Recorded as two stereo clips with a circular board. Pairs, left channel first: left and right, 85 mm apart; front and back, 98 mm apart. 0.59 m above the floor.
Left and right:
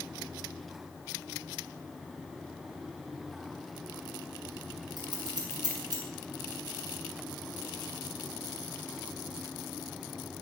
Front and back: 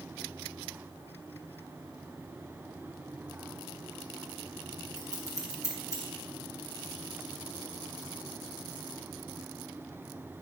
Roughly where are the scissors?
Behind right.